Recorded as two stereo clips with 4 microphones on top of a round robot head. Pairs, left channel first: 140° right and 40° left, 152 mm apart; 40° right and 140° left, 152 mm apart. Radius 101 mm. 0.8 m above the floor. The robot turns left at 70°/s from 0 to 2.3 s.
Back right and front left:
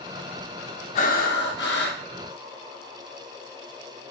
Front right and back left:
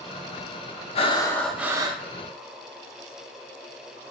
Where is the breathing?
90° right, 0.6 m; by 2.0 s 165° right, 0.6 m.